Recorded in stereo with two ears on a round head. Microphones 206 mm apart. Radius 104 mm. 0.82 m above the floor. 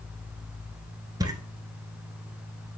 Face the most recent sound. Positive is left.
turn(degrees=-15)  # may be behind; listen again after turning